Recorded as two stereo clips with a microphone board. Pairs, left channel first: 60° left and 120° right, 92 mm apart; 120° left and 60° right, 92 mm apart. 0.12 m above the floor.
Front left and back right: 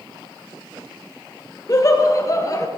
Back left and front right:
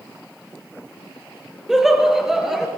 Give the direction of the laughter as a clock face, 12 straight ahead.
11 o'clock.